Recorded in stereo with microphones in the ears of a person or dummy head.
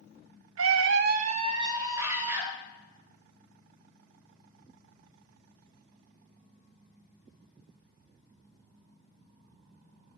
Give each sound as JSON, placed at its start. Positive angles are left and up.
{"t": 0.6, "sound": "a scream", "side_deg": -65, "distance_m": 0.5}